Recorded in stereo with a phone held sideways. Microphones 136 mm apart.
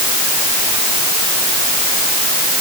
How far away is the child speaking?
No child speaking in this recording.